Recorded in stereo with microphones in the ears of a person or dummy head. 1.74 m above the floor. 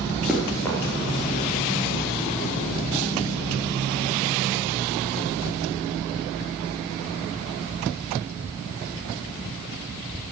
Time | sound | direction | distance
0.3 | running footsteps | centre (ahead or behind) | 1.8 m